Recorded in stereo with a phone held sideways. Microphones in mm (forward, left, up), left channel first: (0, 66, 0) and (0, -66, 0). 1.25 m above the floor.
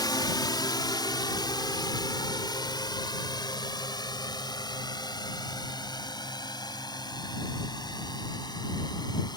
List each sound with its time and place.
0.0 s a drone: 30° left (ahead or behind)